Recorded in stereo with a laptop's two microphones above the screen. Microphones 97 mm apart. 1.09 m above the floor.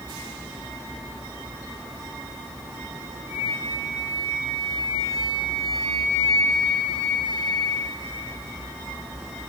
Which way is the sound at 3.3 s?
45° right (ahead or behind).